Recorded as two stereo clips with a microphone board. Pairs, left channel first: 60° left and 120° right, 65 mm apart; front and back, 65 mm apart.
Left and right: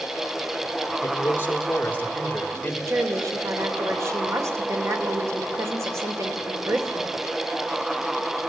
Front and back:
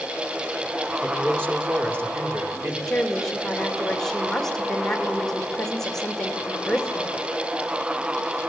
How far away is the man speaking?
About 3 m.